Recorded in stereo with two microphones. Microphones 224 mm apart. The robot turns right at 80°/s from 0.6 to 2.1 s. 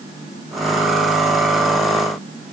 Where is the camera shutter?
I don't hear a camera shutter.